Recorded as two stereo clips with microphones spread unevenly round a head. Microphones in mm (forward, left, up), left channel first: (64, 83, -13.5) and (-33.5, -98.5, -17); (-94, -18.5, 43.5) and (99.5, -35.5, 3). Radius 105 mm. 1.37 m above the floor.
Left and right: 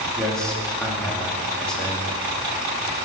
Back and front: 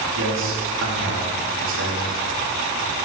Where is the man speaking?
25° right, 2.5 m.